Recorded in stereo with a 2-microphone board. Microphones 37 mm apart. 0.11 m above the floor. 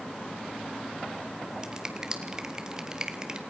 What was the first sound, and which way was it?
A finger snap, 20° right (ahead or behind).